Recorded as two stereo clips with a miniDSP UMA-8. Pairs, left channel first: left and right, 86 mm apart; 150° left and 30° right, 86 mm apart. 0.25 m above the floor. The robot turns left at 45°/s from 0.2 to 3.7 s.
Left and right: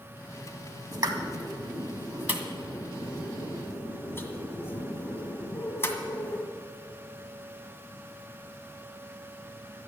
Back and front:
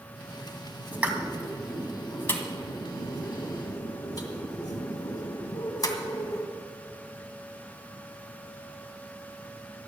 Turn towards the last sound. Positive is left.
turn(degrees=140)